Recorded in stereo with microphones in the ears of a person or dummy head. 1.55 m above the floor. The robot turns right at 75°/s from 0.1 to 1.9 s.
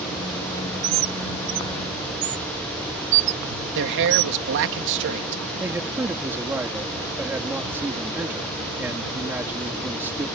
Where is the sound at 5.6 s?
15° right (ahead or behind).